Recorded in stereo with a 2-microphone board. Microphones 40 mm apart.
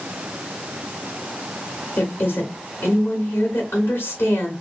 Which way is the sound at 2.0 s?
65° left (ahead or behind).